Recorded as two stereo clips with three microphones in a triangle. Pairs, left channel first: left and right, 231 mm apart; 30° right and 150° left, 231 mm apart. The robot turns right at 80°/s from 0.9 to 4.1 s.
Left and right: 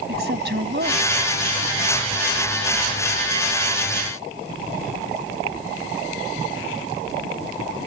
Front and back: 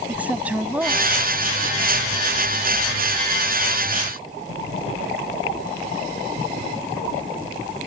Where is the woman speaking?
125° right; by 1.9 s 40° right.